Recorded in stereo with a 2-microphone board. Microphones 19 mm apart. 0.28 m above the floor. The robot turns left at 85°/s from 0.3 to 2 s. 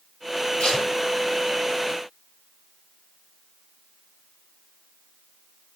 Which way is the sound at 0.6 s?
55° left (ahead or behind).